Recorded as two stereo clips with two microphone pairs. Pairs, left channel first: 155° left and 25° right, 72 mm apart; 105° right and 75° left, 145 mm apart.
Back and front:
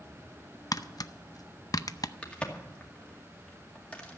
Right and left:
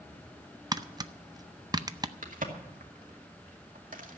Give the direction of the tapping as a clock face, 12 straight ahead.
8 o'clock.